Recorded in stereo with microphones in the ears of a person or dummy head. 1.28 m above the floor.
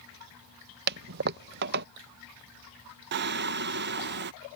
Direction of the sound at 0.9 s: 55° right (ahead or behind).